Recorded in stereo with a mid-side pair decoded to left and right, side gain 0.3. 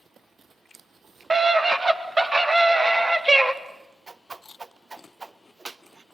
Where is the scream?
40° right, 3.5 m; by 3.5 s 20° right, 2.5 m.